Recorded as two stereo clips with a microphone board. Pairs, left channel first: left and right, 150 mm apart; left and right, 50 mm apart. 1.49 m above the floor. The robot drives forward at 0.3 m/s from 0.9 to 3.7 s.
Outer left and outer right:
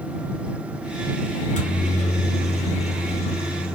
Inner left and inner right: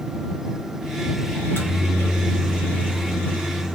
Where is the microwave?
55° left (ahead or behind), 1.0 m; by 3.8 s 40° left (ahead or behind), 1.3 m.